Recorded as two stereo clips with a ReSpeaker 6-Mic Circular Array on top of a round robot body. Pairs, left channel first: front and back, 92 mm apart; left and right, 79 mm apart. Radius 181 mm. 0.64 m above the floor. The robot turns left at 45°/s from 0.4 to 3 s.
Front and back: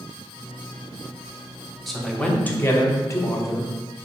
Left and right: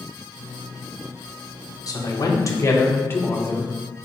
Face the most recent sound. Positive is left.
turn(degrees=40)